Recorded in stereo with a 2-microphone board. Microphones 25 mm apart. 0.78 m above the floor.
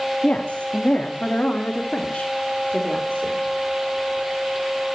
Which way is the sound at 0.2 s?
45° left (ahead or behind).